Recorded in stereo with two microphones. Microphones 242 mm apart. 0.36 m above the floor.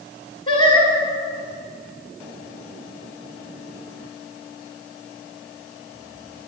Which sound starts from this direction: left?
Singing, at 0.5 s.